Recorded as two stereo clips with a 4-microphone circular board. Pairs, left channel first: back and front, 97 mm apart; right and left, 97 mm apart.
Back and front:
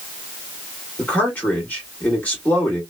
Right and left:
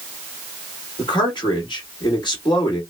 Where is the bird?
I don't hear a bird.